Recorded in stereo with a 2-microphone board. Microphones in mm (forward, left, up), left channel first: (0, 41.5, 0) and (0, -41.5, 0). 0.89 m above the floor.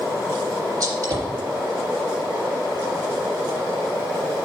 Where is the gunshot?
40° right (ahead or behind), 3.5 m.